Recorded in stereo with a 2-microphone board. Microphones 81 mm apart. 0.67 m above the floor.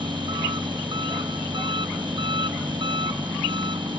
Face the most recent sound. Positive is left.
turn(degrees=-80)